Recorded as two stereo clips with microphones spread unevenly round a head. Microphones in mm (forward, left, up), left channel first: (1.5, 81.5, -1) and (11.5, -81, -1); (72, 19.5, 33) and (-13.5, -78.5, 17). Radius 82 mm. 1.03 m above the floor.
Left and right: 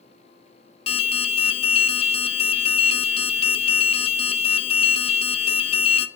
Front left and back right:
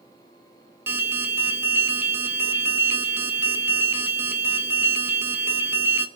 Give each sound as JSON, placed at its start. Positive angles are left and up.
{"t": 0.9, "sound": "an alarm", "azimuth_deg": 150, "distance_m": 0.5}